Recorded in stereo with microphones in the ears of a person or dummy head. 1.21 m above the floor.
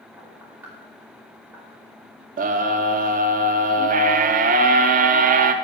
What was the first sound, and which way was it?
Knocking, 10° right (ahead or behind).